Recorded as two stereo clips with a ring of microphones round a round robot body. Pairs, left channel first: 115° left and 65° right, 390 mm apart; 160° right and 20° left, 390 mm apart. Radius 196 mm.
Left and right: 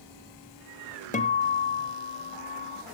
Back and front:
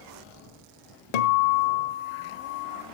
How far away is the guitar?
About 1.4 m.